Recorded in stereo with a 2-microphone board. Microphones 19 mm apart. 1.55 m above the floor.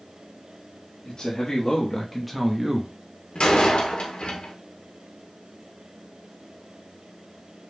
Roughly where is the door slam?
Left.